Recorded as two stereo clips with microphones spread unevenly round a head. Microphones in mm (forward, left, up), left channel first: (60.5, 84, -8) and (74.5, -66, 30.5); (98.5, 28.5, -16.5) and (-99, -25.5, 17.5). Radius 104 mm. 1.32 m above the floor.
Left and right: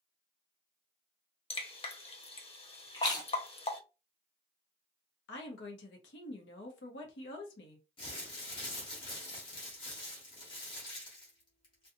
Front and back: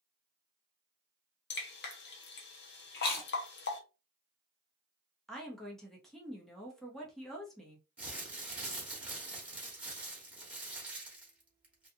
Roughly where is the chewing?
Ahead left.